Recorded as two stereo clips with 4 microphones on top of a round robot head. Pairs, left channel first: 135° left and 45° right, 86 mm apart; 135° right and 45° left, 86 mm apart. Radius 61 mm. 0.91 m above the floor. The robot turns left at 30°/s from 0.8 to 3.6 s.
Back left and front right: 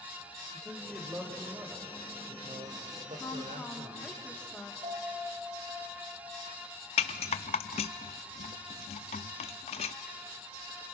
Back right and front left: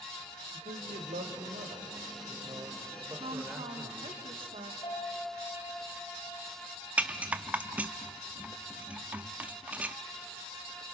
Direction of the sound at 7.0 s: 120° left.